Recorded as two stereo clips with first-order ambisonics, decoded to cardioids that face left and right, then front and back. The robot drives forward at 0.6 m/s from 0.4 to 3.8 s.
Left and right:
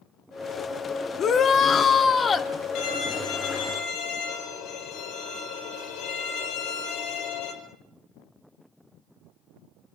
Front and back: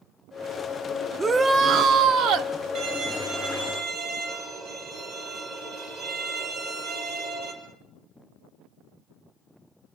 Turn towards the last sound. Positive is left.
turn(degrees=135)